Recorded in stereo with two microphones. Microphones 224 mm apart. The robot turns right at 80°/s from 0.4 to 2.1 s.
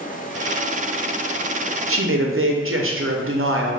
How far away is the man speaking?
About 0.6 m.